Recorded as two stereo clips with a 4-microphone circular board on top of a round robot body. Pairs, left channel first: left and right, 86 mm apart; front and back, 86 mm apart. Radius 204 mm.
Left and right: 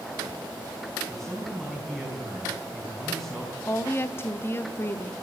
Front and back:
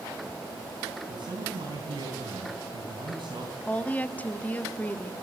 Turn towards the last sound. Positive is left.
turn(degrees=55)